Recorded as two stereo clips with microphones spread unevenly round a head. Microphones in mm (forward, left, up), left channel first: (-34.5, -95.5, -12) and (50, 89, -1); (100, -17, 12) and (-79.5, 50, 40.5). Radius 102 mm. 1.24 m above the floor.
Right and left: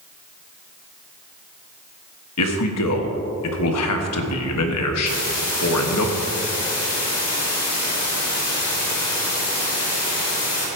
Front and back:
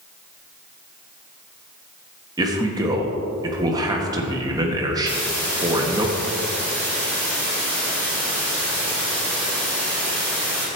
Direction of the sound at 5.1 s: 105° right.